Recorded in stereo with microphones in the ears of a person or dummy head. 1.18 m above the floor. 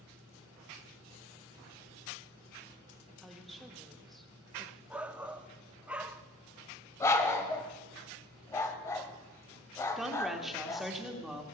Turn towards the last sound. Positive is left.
turn(degrees=-5)  # may be behind; listen again after turning